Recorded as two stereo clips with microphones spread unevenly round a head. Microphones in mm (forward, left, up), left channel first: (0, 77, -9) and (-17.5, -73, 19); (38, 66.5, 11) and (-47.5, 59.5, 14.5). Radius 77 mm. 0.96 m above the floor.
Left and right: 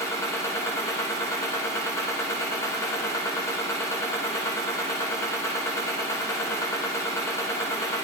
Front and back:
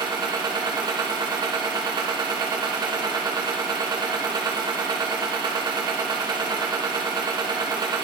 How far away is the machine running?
About 1.3 m.